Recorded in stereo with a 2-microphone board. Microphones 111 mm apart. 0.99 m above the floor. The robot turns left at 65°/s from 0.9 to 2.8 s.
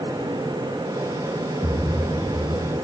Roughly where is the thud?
Behind right.